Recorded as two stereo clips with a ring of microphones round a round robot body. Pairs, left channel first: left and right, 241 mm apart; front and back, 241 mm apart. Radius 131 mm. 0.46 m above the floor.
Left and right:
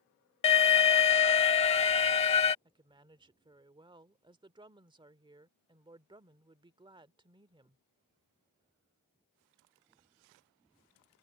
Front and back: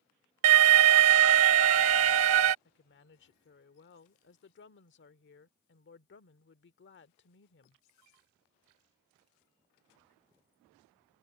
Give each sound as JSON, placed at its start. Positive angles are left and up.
{"t": 0.4, "sound": "an alarm", "azimuth_deg": 155}
{"t": 2.6, "sound": "a woman speaking", "azimuth_deg": -25}